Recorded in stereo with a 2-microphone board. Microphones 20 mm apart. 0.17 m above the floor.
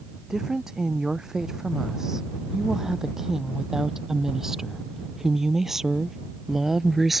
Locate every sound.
0.3 s a woman speaking: 25° right (ahead or behind); by 7.2 s 10° right (ahead or behind)